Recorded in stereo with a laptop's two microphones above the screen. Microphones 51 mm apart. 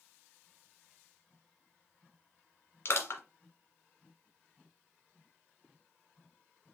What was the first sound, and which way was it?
Crushing, 55° left (ahead or behind).